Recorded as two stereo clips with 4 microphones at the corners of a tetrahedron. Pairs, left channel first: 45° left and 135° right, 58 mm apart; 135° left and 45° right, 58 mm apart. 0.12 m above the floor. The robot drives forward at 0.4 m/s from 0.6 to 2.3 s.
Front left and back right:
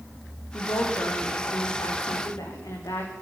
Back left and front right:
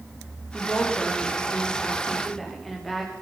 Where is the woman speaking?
45° left, 10 m.